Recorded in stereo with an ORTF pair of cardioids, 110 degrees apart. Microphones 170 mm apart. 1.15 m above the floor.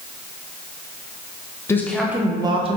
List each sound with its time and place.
1.7 s a woman speaking: 15° left, 0.5 m; by 2.8 s 40° right, 0.7 m